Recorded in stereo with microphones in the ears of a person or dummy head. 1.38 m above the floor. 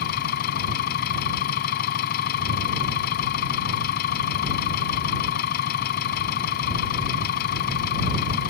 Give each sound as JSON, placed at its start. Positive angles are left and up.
{"t": 0.0, "sound": "an engine running", "side_deg": 50}